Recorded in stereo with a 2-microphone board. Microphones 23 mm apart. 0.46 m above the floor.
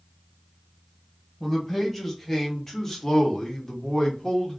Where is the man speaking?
5° left (ahead or behind), 1.5 m; by 4.6 s 25° left (ahead or behind), 0.9 m.